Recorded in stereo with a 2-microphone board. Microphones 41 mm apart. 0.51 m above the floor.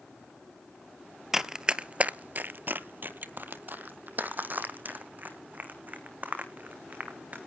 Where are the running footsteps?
10° right (ahead or behind), 0.7 m; by 7.4 s 35° right (ahead or behind), 3 m.